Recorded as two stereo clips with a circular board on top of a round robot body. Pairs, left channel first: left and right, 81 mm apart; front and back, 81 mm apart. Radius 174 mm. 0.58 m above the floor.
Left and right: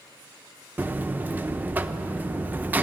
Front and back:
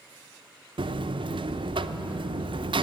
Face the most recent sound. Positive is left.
turn(degrees=-160)